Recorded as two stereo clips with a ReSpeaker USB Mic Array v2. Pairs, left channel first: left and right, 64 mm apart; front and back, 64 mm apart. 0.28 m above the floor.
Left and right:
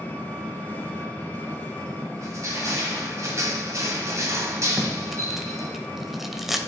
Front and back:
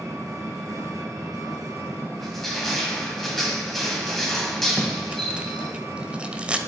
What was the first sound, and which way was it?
An engine running, 155° left.